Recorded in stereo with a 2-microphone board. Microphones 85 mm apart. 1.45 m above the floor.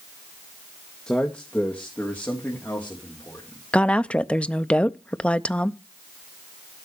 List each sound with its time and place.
1.1 s a man speaking: 10° left (ahead or behind), 1.4 m; by 3.6 s 25° left (ahead or behind), 4.5 m
3.7 s a woman speaking: 15° left (ahead or behind), 0.5 m